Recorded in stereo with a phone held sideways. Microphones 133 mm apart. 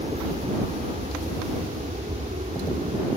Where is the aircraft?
60° right (ahead or behind); by 3.2 s 65° right (ahead or behind).